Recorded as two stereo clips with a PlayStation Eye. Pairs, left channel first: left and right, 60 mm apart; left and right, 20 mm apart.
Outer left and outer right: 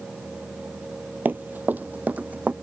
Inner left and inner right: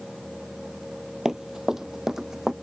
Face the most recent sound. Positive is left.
turn(degrees=-25)  # may be behind; listen again after turning